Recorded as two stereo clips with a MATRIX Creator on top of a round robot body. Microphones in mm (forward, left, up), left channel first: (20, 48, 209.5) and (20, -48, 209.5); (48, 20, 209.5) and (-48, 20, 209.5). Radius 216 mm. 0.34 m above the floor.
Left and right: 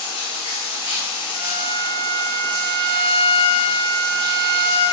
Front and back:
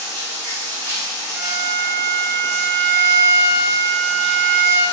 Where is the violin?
55° left, 2 m.